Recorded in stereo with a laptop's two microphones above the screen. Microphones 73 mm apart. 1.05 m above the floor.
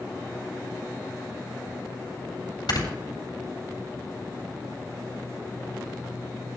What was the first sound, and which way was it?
Snoring, 75° left (ahead or behind).